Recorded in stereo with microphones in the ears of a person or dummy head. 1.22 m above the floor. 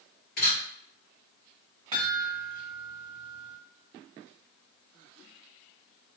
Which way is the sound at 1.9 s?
20° right (ahead or behind).